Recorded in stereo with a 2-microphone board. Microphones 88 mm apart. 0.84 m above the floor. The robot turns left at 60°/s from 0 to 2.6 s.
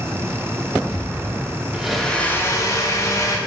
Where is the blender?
170° right, 0.5 m; by 3.4 s 140° left, 0.5 m.